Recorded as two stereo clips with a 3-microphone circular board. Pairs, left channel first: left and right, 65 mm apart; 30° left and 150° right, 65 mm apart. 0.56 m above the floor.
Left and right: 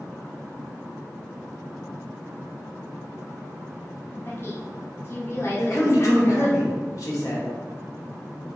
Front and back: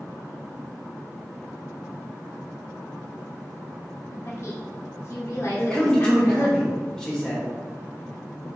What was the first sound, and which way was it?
A woman speaking, 55° left.